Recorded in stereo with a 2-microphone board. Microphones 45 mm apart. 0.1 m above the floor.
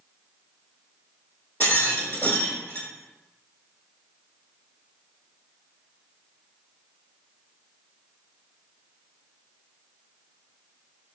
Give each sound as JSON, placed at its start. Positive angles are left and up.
{"t": 1.6, "sound": "a rattle", "side_deg": 40, "distance_m": 1.1}